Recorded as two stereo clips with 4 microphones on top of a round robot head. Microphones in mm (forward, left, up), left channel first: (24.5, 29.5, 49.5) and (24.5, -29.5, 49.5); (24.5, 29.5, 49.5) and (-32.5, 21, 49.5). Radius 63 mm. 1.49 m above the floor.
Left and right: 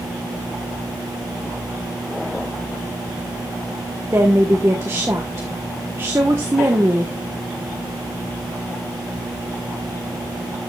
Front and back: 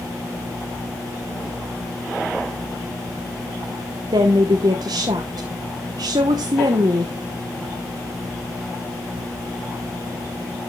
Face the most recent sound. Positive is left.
turn(degrees=-150)